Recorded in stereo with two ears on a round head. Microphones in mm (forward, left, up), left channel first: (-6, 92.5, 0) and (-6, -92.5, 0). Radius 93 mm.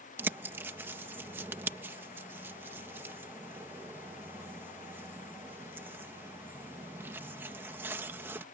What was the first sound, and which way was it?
A bird, 10° right (ahead or behind).